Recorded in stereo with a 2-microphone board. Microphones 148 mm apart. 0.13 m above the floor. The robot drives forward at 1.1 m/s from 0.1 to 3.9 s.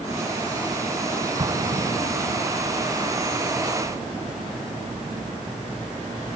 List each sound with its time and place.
1.4 s an explosion: 30° right (ahead or behind); by 2.5 s 45° right (ahead or behind)